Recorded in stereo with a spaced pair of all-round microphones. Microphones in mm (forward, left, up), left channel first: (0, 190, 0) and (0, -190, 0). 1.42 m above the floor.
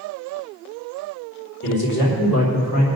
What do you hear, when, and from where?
1.6 s a man speaking: 70° left (ahead or behind), 3.5 m; by 2.9 s 50° left (ahead or behind), 3 m